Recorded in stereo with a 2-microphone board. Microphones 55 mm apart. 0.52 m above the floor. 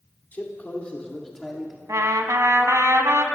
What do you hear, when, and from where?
0.3 s a man speaking: 40° left (ahead or behind), 1.7 m; by 1.8 s 10° right (ahead or behind), 1.4 m
1.9 s a trumpet: 70° right (ahead or behind), 0.7 m